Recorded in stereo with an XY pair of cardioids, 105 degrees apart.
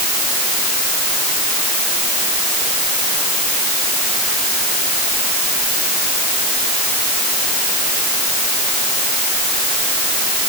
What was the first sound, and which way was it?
Only background noise.